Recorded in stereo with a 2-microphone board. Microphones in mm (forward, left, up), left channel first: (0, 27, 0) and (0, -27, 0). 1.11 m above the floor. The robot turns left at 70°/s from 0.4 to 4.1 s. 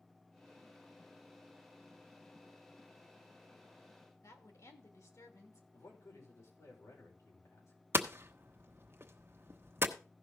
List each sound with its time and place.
4.2 s a woman speaking: 70° left (ahead or behind), 2.5 m
5.7 s a man speaking: 75° left (ahead or behind), 5 m
7.9 s hammering: 45° right (ahead or behind), 1.0 m